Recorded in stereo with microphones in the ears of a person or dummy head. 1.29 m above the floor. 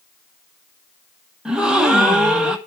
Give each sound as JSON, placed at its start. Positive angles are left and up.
{"t": 1.4, "sound": "a gasp", "side_deg": -5, "distance_m": 0.8}